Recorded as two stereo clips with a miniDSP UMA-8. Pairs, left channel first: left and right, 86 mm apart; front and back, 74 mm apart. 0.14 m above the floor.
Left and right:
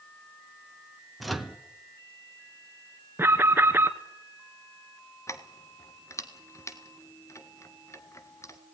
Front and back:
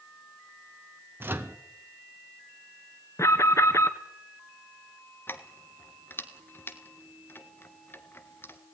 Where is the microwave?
Straight behind, 1.5 m.